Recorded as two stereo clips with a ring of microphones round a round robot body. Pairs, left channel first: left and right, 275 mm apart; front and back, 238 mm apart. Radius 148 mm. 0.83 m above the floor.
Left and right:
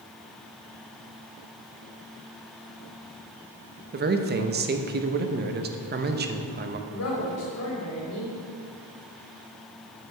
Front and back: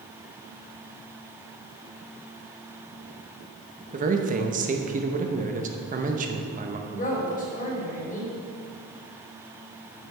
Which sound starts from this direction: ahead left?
A woman speaking, at 6.9 s.